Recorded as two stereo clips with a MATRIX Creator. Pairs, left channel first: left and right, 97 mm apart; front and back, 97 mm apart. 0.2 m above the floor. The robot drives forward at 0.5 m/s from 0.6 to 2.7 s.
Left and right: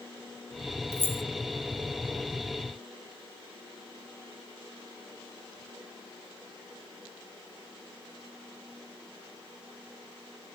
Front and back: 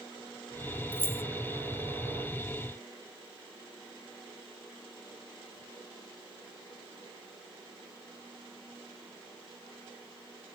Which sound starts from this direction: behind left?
Keys jangling, at 0.9 s.